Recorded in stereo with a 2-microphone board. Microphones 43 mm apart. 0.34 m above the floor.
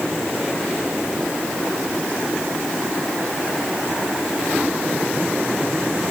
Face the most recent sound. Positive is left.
No sound to turn to.